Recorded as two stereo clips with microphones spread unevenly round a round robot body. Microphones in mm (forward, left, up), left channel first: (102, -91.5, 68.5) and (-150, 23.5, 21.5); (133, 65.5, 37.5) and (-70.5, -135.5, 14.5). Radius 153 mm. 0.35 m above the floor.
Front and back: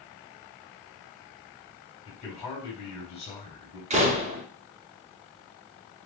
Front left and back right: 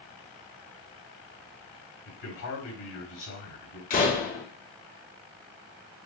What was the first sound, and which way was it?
A man speaking, 45° left.